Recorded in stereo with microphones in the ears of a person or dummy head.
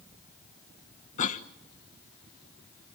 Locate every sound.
1.2 s a cough: 45° left (ahead or behind), 0.7 m